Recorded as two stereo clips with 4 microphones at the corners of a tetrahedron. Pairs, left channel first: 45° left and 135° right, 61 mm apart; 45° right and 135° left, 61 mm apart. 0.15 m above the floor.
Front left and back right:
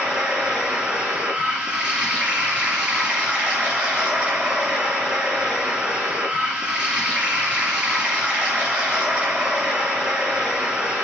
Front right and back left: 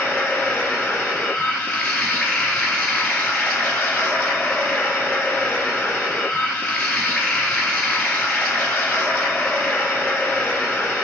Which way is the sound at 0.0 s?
90° right.